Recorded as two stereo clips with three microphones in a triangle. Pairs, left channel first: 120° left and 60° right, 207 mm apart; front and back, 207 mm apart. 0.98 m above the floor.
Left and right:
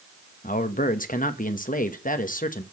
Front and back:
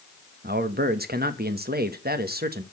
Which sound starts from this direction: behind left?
A man speaking, at 0.4 s.